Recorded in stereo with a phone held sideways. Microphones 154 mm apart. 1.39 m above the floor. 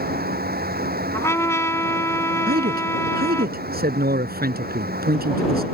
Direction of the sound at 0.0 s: 85° right.